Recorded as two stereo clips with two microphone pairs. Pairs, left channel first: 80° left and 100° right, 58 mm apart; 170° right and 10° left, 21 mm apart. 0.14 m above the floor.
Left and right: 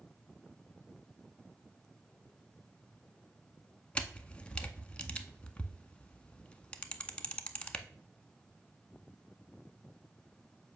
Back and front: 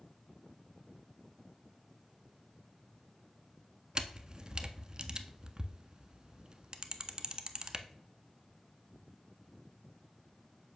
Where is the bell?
I don't hear a bell.